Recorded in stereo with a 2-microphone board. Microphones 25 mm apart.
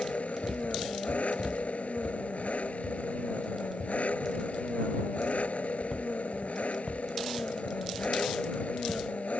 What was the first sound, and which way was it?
An engine running, 70° left (ahead or behind).